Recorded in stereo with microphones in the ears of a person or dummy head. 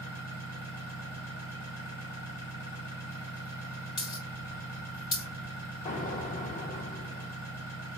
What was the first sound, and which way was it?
An engine running, 35° left (ahead or behind).